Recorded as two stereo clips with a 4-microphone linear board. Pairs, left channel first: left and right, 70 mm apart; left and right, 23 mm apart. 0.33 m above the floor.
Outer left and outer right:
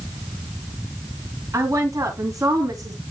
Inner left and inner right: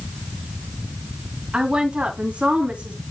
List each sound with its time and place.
1.5 s a woman speaking: 45° right (ahead or behind), 2.5 m; by 3.0 s 55° right (ahead or behind), 3.5 m